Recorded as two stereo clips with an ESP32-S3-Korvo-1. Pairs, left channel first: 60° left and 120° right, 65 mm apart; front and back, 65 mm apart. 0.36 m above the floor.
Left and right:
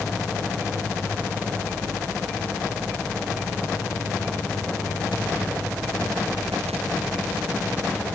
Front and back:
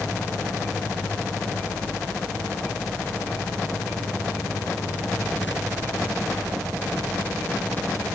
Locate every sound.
Only background noise.